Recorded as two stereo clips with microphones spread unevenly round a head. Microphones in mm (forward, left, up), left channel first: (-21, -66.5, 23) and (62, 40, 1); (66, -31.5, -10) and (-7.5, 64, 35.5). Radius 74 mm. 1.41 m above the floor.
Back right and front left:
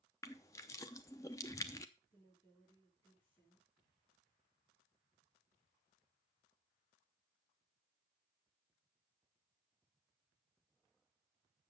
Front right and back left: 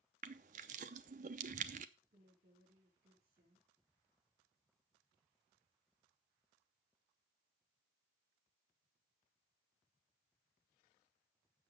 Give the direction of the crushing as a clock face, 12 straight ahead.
7 o'clock.